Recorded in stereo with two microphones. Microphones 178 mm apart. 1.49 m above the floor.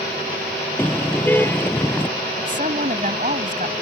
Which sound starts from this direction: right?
A woman speaking, at 2.4 s.